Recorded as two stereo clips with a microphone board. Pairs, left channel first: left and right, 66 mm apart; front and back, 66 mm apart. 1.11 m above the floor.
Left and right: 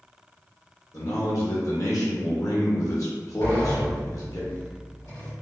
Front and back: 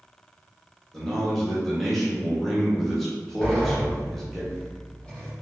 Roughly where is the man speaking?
Left.